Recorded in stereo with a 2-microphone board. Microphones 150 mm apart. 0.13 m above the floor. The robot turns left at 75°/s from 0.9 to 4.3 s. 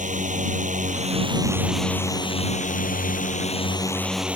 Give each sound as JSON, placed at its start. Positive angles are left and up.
{"t": 0.0, "sound": "a drone", "azimuth_deg": -115}